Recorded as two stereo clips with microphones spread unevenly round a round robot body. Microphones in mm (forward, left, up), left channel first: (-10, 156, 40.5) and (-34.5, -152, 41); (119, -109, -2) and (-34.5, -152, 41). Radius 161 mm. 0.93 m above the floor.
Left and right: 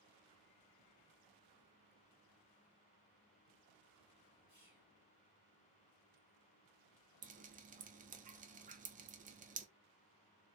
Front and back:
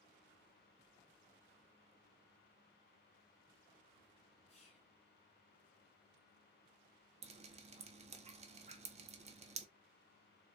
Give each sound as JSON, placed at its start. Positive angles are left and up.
{"t": 4.5, "sound": "whispering", "azimuth_deg": -20, "distance_m": 2.0}
{"t": 7.2, "sound": "dripping", "azimuth_deg": -130, "distance_m": 0.6}